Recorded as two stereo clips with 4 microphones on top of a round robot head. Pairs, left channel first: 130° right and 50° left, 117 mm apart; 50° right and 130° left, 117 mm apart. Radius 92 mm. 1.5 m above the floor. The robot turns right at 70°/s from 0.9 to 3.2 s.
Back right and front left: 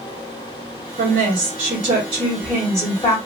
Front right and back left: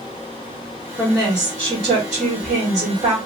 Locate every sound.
1.0 s a woman speaking: 35° left, 1.7 m; by 3.2 s 175° right, 1.7 m